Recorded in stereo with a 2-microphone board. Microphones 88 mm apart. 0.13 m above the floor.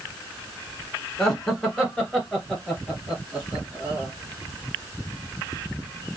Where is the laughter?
10° left (ahead or behind), 1.1 m; by 4.1 s 5° right (ahead or behind), 2.5 m.